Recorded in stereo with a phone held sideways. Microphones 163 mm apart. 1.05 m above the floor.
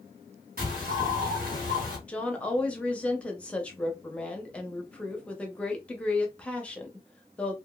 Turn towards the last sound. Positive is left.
turn(degrees=5)  # may be behind; listen again after turning